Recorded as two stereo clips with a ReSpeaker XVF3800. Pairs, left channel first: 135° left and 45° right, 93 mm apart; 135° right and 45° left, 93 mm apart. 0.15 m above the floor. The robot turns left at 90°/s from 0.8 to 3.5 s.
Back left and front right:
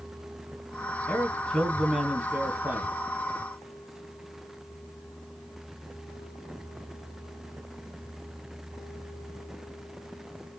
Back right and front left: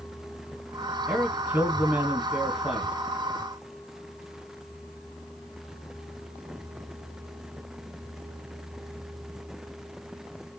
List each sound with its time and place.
1.1 s a man speaking: 115° left, 1.3 m; by 2.9 s 50° right, 1.3 m